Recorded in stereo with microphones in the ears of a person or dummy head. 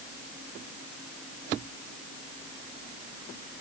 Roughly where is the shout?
I don't hear a shout.